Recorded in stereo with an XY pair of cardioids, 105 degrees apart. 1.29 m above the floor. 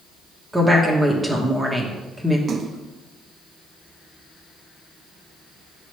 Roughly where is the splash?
Ahead right.